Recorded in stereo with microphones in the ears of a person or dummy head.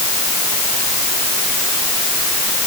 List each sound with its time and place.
Only background noise.